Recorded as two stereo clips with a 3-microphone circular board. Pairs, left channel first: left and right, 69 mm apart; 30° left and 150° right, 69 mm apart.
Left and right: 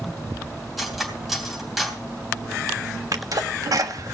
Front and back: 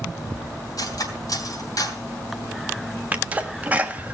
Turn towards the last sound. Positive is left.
turn(degrees=-90)